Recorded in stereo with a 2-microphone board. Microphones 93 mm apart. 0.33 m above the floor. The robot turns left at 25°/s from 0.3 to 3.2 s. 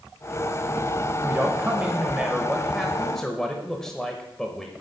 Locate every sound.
1.2 s a man speaking: 140° right, 0.9 m; by 4.7 s 170° left, 0.9 m